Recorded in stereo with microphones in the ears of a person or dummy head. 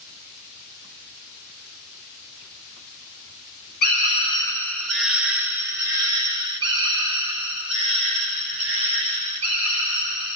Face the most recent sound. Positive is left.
turn(degrees=-40)  # may be behind; listen again after turning